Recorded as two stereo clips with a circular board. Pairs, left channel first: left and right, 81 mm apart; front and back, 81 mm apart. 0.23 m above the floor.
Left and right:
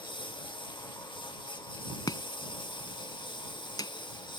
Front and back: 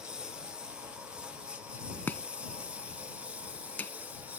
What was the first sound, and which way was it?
A lawn mower, 100° left.